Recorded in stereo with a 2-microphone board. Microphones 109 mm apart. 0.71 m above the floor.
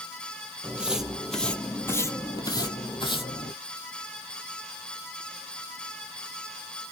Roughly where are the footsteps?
Centre.